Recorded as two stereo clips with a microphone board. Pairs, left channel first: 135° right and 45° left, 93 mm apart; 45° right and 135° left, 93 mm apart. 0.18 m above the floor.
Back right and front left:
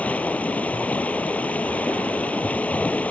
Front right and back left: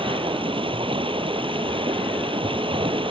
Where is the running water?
150° left.